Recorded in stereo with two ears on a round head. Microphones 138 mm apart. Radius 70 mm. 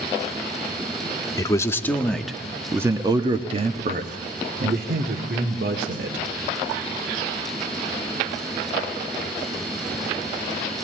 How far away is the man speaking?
About 1.5 m.